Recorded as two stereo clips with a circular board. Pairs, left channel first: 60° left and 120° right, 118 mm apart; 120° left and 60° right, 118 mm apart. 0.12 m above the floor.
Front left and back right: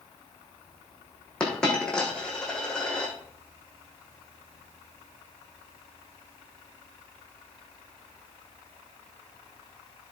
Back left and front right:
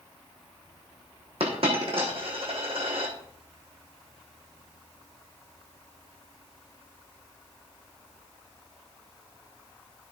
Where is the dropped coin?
25° right, 3.5 m.